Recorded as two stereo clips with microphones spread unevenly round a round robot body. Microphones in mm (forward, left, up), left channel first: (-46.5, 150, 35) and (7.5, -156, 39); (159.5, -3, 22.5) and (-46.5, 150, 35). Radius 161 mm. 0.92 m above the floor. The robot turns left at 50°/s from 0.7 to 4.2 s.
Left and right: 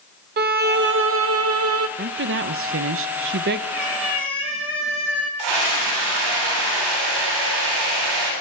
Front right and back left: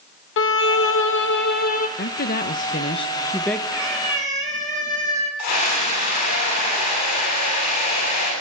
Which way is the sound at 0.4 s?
35° right.